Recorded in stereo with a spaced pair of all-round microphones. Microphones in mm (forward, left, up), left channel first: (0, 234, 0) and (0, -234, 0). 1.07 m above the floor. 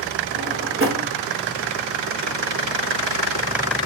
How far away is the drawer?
About 1.1 m.